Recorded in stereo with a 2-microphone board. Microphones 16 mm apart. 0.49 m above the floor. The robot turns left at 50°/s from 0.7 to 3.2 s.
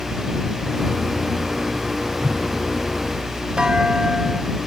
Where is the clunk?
70° right (ahead or behind).